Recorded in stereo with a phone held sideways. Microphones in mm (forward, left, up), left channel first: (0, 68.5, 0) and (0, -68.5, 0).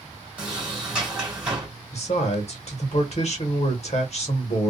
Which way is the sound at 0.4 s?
10° right (ahead or behind).